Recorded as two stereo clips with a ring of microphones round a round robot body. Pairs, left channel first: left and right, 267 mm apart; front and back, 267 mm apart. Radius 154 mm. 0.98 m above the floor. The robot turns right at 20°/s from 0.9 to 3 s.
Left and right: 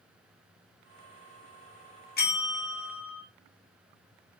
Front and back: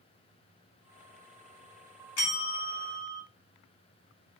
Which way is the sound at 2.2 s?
35° left.